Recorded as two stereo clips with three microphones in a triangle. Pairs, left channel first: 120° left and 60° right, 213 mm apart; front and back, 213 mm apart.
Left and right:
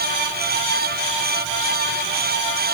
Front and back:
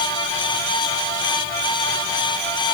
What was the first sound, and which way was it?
Only background noise.